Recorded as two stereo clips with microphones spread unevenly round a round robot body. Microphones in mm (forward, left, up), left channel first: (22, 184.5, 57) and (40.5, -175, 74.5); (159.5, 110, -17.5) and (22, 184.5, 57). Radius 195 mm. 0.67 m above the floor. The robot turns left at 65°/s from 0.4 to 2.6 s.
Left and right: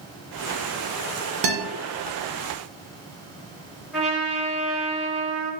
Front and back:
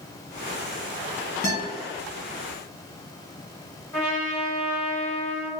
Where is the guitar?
90° right, 0.5 m; by 1.6 s 100° right, 0.5 m.